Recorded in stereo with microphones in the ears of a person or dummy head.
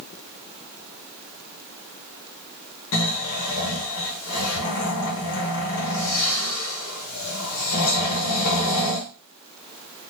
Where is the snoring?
85° left, 1.0 m.